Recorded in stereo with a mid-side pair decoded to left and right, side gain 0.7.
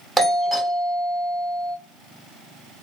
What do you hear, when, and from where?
0.2 s a doorbell: 5° right, 0.9 m